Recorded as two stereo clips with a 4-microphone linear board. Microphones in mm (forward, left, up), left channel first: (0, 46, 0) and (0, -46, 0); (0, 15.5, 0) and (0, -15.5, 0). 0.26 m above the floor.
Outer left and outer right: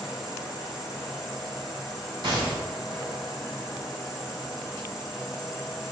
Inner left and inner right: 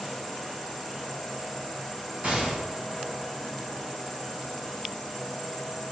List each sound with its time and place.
0.0 s an insect: centre (ahead or behind), 1.3 m
2.2 s a gunshot: 60° right (ahead or behind), 3 m